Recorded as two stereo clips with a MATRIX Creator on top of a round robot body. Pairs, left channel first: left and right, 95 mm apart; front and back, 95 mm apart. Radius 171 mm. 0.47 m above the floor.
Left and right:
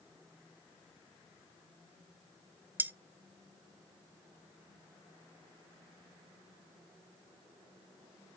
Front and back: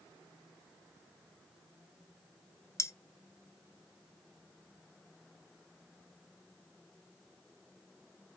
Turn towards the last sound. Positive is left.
turn(degrees=-35)